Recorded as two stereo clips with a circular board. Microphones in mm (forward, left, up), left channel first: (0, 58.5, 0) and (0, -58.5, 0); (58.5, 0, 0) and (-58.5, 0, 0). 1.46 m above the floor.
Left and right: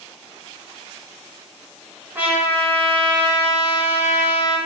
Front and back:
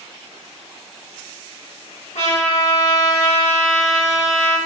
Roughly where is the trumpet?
Ahead.